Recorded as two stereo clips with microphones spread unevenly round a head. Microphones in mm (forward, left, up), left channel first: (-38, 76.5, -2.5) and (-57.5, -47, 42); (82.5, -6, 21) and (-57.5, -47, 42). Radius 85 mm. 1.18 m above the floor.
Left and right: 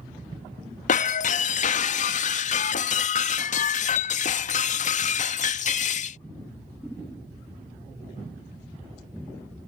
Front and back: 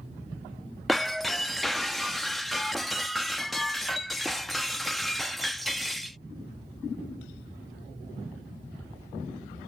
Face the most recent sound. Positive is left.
turn(degrees=115)